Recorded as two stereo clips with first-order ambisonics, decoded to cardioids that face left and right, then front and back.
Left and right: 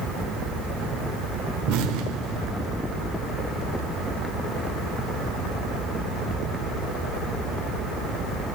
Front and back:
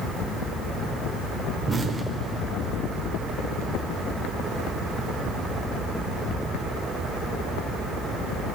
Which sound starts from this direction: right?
An explosion, at 1.7 s.